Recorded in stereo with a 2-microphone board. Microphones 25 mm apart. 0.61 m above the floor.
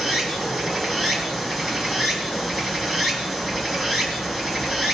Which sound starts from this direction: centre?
Running water, at 0.0 s.